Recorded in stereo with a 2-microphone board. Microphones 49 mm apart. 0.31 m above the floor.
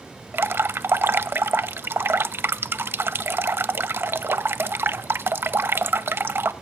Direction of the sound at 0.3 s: 55° right (ahead or behind).